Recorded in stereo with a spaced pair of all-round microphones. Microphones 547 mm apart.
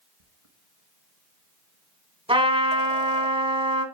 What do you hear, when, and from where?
0.2 s a squeak: 70° right (ahead or behind), 1.2 m
2.3 s a trumpet: 10° right (ahead or behind), 1.7 m